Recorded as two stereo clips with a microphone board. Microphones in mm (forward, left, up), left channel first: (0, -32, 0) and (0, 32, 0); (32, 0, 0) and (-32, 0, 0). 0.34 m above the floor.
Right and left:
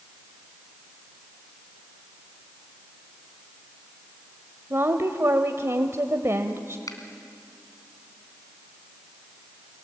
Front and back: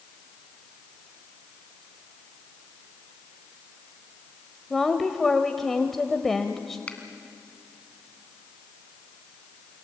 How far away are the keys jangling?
I don't hear keys jangling.